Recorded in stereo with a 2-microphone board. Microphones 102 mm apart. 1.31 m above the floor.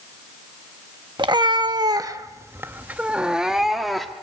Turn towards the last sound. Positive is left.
turn(degrees=0)  # may be behind; listen again after turning